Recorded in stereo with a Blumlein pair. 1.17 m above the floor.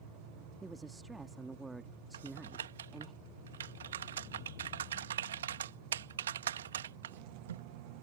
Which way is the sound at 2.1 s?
65° right.